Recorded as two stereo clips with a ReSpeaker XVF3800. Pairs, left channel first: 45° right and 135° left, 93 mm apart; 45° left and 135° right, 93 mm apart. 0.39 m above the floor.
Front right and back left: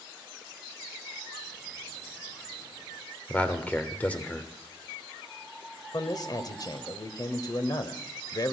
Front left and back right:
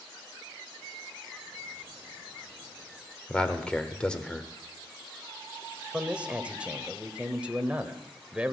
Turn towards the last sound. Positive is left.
turn(degrees=-60)